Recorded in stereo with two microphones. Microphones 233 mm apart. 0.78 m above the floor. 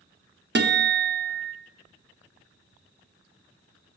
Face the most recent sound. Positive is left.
turn(degrees=-45)  # may be behind; listen again after turning